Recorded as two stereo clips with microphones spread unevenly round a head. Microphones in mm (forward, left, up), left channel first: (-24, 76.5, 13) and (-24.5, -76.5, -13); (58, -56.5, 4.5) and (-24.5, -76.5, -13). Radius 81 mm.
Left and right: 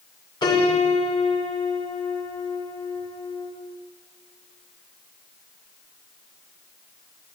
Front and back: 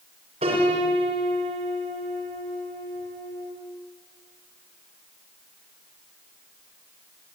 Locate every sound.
0.4 s a piano: 150° left, 6 m